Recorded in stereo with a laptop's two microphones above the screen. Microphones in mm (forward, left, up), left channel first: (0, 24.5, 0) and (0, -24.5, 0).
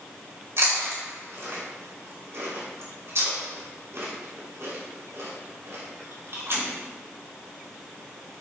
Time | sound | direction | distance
0.6 | chewing | 70° right (ahead or behind) | 3 m